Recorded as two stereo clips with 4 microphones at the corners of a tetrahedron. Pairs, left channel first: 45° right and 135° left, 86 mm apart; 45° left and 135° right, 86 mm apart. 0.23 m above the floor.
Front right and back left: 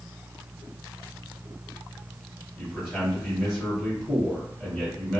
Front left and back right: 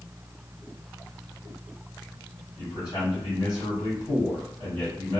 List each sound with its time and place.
2.6 s a man speaking: 35° left, 1.8 m